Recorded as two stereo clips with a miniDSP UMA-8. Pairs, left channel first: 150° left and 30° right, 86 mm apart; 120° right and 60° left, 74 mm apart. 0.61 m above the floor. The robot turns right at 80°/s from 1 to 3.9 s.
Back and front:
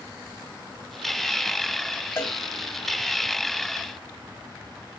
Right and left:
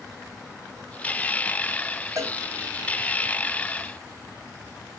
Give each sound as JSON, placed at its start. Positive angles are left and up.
{"t": 2.2, "sound": "a cowbell", "azimuth_deg": 90, "distance_m": 1.1}